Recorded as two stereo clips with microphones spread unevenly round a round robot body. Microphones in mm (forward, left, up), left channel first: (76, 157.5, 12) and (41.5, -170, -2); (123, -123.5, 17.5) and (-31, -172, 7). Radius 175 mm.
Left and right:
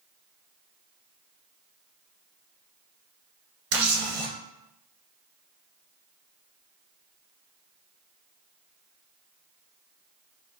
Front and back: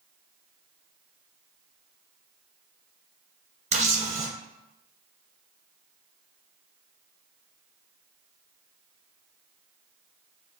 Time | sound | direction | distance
3.7 | a camera shutter | 115° right | 1.4 m